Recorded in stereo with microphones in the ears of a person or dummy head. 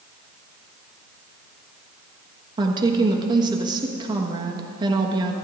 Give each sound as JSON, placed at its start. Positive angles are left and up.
{"t": 2.6, "sound": "a woman speaking", "side_deg": -25, "distance_m": 1.3}